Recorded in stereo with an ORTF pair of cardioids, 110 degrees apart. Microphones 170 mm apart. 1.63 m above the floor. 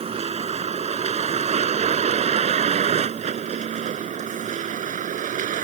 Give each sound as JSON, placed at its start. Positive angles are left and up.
{"t": 0.0, "sound": "a vehicle", "azimuth_deg": -35}